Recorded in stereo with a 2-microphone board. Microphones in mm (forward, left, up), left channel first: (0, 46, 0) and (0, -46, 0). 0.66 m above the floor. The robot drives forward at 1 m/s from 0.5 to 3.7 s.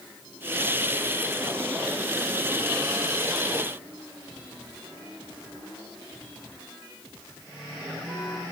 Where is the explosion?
No explosion in this recording.